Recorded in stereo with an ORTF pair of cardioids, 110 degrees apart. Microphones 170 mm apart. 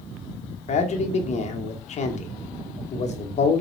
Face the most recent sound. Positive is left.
turn(degrees=45)